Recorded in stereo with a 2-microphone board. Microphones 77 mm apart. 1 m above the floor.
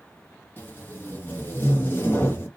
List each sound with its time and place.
0.6 s tape being pulled: 30° left (ahead or behind), 0.7 m